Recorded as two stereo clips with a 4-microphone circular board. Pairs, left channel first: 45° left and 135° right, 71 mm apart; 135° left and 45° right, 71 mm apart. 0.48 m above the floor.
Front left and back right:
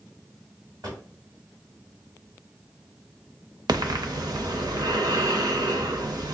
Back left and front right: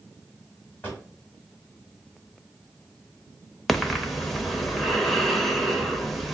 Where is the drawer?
155° right, 1.7 m.